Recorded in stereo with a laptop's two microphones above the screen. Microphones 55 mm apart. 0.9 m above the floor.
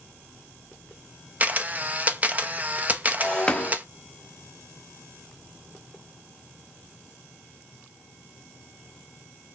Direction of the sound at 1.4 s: 30° right (ahead or behind).